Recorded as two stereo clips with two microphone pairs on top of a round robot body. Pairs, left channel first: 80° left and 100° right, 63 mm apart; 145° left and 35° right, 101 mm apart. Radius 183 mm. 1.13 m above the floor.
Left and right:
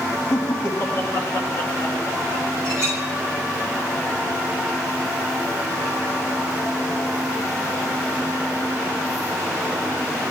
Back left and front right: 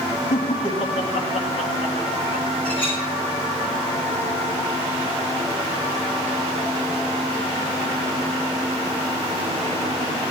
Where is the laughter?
125° left, 2 m.